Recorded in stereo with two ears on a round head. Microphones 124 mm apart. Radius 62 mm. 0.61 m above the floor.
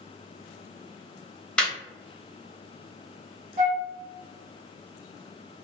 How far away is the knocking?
No knocking in this recording.